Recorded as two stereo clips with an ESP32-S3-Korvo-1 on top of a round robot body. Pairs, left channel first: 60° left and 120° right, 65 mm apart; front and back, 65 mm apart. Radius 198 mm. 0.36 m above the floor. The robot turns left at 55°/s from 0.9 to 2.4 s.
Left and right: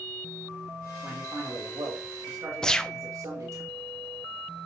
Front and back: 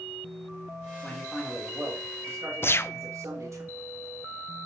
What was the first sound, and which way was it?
A man speaking, 70° right.